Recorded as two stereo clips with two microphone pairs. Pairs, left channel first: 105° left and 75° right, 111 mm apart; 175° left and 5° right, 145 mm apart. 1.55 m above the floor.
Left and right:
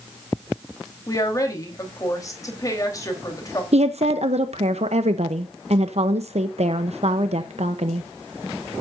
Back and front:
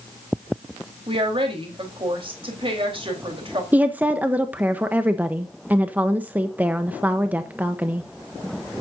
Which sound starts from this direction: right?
A woman speaking, at 3.7 s.